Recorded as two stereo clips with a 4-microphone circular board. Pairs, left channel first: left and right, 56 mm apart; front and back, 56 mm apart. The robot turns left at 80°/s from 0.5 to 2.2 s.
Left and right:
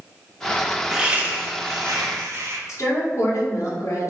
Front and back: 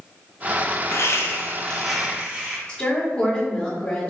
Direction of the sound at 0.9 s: 10° right.